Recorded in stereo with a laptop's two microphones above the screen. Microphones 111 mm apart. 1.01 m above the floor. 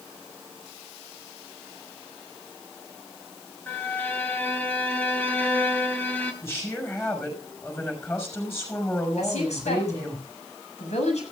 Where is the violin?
15° left (ahead or behind), 4 m.